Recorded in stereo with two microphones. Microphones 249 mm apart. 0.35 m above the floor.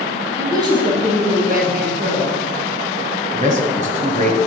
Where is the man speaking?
30° right (ahead or behind), 1.7 m.